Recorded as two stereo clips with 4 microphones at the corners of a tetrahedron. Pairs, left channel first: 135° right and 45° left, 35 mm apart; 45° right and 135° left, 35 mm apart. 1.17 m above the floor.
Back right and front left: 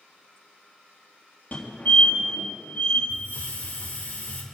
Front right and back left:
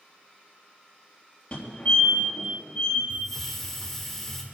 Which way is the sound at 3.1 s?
125° right.